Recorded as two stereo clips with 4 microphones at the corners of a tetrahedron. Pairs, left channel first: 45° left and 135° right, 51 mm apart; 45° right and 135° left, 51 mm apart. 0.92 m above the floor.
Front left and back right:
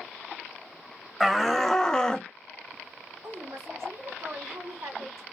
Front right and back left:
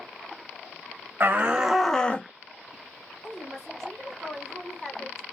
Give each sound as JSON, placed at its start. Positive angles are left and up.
{"t": 1.2, "sound": "a shout", "azimuth_deg": 130, "distance_m": 0.8}
{"t": 3.2, "sound": "a woman speaking", "azimuth_deg": -125, "distance_m": 2.5}